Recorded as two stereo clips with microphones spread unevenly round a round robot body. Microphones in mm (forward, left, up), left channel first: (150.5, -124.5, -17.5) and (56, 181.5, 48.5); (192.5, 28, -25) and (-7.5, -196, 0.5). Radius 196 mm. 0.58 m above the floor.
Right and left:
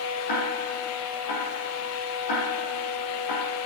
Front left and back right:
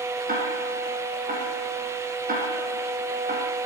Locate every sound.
0.3 s ticking: 70° right, 8 m